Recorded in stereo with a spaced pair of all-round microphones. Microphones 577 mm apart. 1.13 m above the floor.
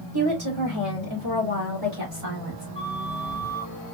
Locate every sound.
0.1 s a woman speaking: 40° right (ahead or behind), 2.5 m; by 2.6 s 70° right (ahead or behind), 3 m
2.8 s a flute: 70° right (ahead or behind), 2.5 m